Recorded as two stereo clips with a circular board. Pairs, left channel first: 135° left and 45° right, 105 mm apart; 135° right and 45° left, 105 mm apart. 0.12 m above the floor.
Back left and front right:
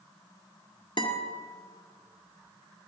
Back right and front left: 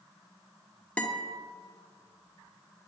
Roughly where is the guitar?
Behind left.